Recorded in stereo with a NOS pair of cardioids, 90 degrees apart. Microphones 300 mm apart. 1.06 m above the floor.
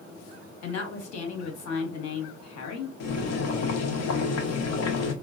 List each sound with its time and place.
0.6 s a woman speaking: 60° left, 1.1 m
3.0 s boiling: 60° left, 0.8 m